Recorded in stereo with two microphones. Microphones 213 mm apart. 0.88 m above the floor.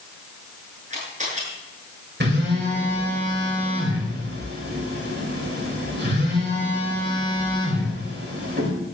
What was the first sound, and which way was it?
A camera shutter, 35° right (ahead or behind).